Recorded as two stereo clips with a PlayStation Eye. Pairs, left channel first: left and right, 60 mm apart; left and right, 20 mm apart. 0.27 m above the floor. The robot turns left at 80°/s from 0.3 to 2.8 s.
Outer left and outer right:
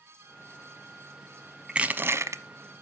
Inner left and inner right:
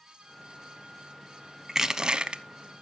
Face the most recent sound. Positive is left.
turn(degrees=-105)